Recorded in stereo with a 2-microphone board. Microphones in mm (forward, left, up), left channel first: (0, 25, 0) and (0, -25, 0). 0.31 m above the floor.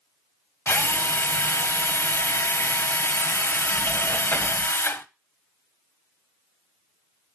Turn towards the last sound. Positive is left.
turn(degrees=55)  # may be behind; listen again after turning